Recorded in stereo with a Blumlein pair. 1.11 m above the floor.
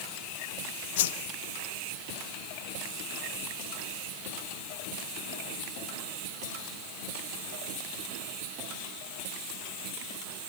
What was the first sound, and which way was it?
A whoosh, 55° left.